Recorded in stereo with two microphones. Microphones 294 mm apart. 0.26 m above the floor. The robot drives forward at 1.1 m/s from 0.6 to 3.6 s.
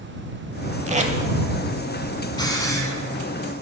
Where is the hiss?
15° left (ahead or behind), 1.0 m; by 2.9 s 10° left (ahead or behind), 1.5 m.